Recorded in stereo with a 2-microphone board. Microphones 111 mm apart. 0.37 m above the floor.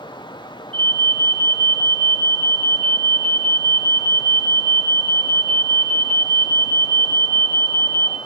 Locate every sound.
0.7 s an alarm: 55° right (ahead or behind), 4 m